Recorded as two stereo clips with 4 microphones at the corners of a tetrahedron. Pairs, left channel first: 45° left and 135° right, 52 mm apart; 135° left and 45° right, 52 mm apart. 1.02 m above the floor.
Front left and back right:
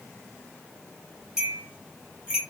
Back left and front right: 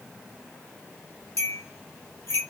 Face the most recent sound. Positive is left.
turn(degrees=145)